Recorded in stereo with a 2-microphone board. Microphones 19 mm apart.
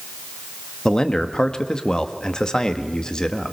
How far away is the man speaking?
About 1.7 m.